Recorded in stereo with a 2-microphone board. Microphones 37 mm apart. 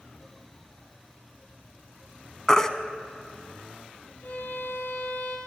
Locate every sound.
2.5 s a baby crying: 20° left (ahead or behind), 0.6 m
4.2 s a violin: 45° left (ahead or behind), 4 m